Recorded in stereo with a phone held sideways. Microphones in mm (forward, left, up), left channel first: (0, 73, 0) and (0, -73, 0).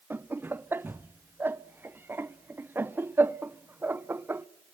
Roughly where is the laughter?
Centre.